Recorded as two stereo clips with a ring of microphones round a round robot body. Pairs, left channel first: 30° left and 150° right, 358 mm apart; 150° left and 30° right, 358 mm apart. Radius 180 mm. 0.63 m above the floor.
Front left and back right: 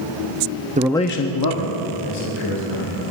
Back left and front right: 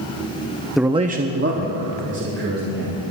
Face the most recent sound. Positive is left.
turn(degrees=30)